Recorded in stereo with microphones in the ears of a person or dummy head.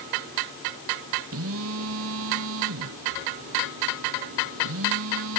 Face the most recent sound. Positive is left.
turn(degrees=-75)  # may be behind; listen again after turning